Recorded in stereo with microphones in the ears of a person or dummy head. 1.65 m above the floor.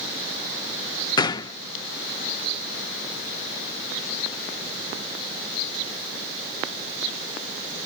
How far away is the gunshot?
About 0.5 m.